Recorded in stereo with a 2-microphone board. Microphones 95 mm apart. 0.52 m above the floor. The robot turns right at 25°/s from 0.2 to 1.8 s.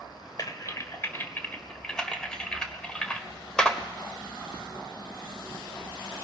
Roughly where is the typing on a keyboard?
Left.